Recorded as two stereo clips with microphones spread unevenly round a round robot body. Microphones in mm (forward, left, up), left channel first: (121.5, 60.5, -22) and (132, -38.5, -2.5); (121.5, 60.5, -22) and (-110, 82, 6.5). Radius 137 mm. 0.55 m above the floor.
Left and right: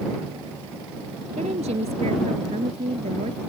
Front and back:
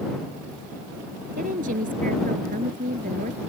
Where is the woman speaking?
125° right.